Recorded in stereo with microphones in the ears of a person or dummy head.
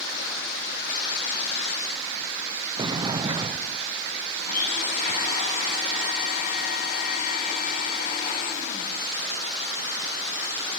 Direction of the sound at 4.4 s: 50° left (ahead or behind).